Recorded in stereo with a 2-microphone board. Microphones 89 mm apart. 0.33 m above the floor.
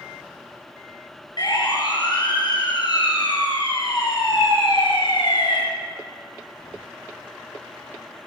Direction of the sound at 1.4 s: 55° left (ahead or behind).